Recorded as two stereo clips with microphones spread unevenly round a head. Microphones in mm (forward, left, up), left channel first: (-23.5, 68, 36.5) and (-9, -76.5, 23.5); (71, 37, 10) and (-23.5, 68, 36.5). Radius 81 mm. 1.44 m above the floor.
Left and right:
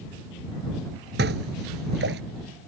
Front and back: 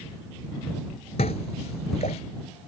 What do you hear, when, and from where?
1.2 s dishes clattering: 65° right